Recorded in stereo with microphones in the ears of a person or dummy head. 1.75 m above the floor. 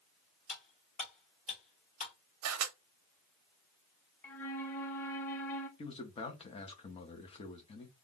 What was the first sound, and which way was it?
Cutlery clinking, 40° left (ahead or behind).